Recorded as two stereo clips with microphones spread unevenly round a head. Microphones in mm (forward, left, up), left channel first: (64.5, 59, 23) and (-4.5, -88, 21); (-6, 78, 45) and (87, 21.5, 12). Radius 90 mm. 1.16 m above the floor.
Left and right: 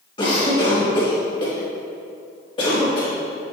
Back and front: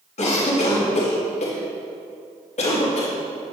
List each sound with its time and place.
0.2 s a cough: 130° left, 1.9 m